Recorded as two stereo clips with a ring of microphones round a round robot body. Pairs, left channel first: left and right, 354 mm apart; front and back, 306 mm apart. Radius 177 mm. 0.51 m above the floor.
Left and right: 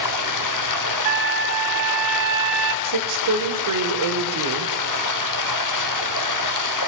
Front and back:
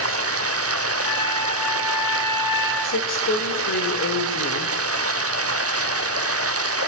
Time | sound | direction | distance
0.0 | running water | 130° left | 0.9 m
1.1 | a trumpet | 80° right | 1.7 m
2.8 | a woman speaking | 55° right | 1.9 m